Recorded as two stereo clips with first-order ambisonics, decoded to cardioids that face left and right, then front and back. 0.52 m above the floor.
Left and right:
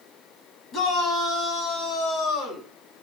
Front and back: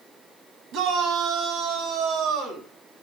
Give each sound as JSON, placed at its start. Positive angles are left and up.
{"t": 0.7, "sound": "a shout", "azimuth_deg": 140, "distance_m": 4.5}